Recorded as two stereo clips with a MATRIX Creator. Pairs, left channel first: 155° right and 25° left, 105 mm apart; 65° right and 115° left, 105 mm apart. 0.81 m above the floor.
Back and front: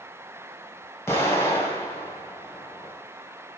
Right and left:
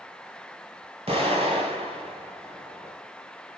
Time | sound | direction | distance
1.1 | an explosion | 135° left | 3 m